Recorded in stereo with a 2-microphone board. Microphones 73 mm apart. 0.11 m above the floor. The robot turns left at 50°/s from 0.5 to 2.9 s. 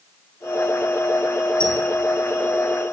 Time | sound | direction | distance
1.6 | a squeak | 15° left (ahead or behind) | 4 m